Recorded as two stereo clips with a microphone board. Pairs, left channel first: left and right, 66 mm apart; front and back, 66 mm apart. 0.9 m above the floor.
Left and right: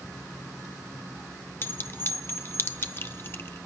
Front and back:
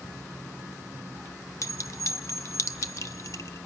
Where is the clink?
35° left, 0.8 m.